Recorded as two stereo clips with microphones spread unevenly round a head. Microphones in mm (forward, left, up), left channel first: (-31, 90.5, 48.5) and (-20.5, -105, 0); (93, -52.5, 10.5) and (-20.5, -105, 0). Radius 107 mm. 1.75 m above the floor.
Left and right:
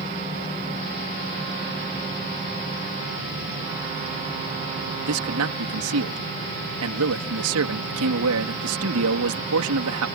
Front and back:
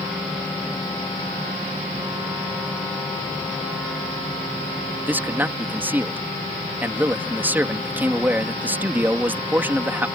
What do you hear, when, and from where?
5.0 s a man speaking: 80° right